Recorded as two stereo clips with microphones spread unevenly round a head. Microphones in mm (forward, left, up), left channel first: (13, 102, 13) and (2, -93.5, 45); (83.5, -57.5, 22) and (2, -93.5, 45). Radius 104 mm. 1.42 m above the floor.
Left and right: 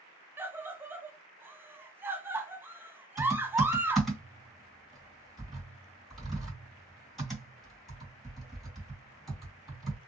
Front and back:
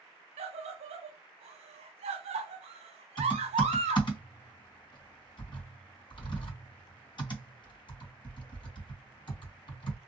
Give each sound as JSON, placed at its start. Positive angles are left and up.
{"t": 0.4, "sound": "a scream", "azimuth_deg": -175, "distance_m": 0.6}
{"t": 3.2, "sound": "typing on a keyboard", "azimuth_deg": -10, "distance_m": 2.5}